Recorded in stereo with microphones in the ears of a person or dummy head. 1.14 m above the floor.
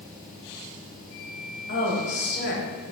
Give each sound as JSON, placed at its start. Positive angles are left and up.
{"t": 1.7, "sound": "a woman speaking", "side_deg": 60, "distance_m": 1.2}